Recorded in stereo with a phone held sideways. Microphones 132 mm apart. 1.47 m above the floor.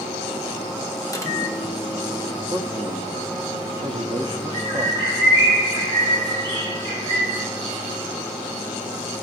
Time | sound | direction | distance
1.1 | a microwave | 25° left (ahead or behind) | 0.7 m
2.5 | a man speaking | 40° right (ahead or behind) | 0.6 m
4.5 | a bird | 35° right (ahead or behind) | 3 m